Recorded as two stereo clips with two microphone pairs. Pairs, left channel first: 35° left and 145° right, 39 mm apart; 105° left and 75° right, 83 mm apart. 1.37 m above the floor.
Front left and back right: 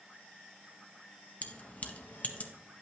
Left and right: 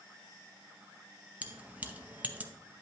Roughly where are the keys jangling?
Ahead.